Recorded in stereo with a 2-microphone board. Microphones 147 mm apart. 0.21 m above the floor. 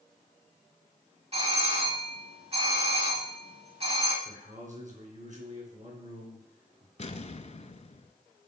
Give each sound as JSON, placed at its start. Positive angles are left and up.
{"t": 1.3, "sound": "a doorbell", "side_deg": -45, "distance_m": 2.5}
{"t": 4.2, "sound": "a man speaking", "side_deg": -55, "distance_m": 3.0}
{"t": 7.0, "sound": "an explosion", "side_deg": 50, "distance_m": 0.6}